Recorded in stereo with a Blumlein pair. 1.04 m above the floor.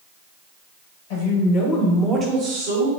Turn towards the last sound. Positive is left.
turn(degrees=-60)